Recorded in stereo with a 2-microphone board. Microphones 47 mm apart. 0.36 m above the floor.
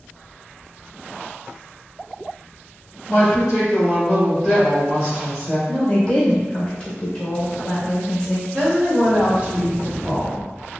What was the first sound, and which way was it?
A woman speaking, centre (ahead or behind).